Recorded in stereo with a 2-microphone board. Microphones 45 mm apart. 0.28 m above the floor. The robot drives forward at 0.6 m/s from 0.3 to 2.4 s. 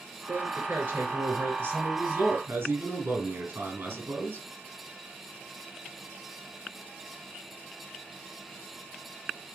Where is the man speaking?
55° right (ahead or behind), 5 m; by 4.5 s 70° right (ahead or behind), 4.5 m.